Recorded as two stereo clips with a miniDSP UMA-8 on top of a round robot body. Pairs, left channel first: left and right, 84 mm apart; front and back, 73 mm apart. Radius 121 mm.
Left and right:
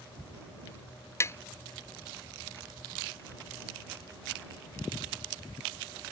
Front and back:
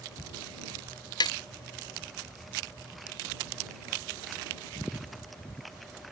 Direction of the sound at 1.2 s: 30° left.